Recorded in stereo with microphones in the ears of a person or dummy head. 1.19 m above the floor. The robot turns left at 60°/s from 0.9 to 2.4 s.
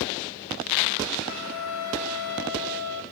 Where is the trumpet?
130° left, 2 m; by 3.0 s 65° left, 2 m.